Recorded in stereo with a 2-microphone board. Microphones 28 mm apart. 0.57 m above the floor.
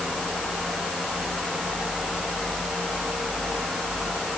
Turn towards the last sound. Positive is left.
No sound to turn to.